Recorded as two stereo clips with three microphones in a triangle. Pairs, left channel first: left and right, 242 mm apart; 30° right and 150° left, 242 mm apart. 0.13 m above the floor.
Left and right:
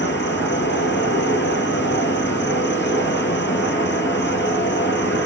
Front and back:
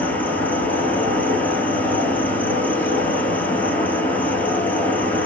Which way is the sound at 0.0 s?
55° left.